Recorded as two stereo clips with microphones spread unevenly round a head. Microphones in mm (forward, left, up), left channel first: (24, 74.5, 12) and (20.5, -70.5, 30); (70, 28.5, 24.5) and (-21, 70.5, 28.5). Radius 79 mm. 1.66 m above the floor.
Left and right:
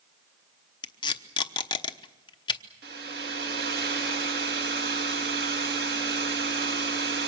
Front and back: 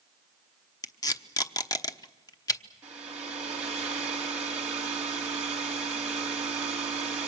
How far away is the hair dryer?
About 3 m.